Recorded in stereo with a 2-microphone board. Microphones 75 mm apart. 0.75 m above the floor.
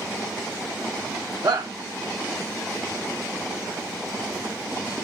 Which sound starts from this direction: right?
A shout, at 1.4 s.